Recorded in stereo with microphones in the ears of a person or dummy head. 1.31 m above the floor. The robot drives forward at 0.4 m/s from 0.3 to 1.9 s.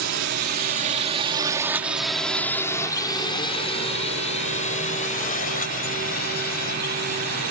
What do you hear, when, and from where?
0.0 s a drone: 65° right (ahead or behind); by 7.5 s 50° left (ahead or behind)